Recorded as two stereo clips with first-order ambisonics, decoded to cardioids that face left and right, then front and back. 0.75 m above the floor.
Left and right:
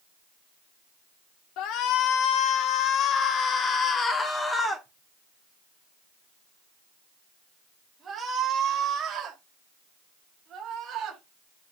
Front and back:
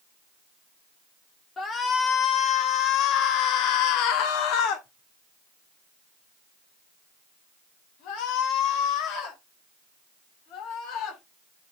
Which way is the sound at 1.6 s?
65° left.